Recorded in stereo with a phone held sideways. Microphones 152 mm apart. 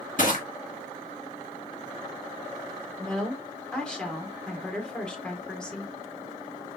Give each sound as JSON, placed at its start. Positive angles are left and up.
{"t": 0.2, "sound": "crushing", "side_deg": 60, "distance_m": 1.9}
{"t": 3.0, "sound": "a woman speaking", "side_deg": 5, "distance_m": 1.4}